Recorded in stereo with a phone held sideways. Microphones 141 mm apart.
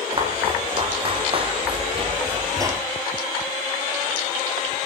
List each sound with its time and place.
0.1 s footsteps: 35° right (ahead or behind), 3 m; by 2.8 s 15° right (ahead or behind), 0.8 m